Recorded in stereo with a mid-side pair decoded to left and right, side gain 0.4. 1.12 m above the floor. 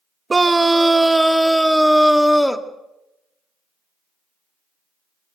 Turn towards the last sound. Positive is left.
turn(degrees=10)